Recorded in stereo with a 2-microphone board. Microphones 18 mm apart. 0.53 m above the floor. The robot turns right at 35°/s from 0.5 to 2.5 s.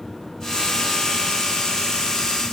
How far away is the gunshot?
No gunshot in this recording.